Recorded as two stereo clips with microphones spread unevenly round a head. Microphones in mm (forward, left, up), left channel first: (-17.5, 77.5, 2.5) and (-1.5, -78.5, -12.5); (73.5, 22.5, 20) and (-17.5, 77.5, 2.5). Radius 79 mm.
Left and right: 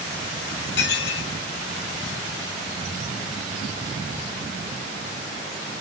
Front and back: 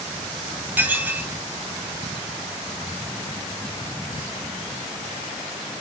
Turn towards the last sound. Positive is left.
turn(degrees=75)